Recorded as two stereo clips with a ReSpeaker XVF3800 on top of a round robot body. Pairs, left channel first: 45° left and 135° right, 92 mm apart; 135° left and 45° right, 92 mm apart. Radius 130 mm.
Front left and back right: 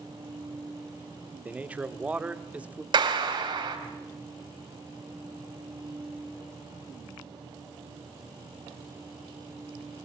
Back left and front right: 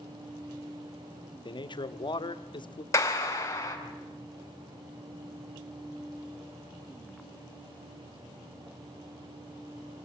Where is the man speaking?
150° left, 1.6 m.